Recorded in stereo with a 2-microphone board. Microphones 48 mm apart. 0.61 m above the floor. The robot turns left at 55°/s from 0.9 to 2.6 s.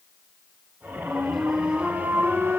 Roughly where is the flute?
Ahead.